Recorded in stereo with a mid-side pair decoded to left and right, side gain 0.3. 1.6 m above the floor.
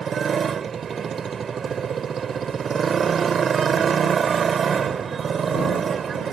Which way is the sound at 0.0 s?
70° right.